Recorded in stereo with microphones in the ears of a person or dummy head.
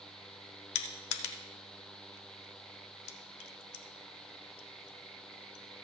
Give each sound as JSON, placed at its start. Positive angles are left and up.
{"t": 0.8, "sound": "crushing", "side_deg": 75, "distance_m": 1.0}